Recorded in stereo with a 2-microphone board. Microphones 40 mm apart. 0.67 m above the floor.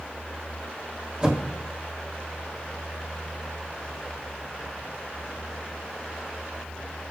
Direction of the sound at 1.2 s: 25° right (ahead or behind).